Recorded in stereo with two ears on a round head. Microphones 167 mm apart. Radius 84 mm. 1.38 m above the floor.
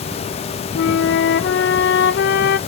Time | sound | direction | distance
0.8 | a flute | 65° left (ahead or behind) | 0.5 m